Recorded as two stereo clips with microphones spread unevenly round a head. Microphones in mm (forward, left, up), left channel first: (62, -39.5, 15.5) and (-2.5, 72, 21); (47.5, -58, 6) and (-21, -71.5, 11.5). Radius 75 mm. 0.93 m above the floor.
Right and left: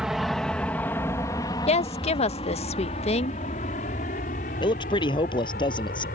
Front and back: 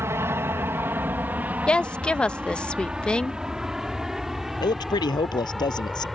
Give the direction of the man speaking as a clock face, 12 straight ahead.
12 o'clock.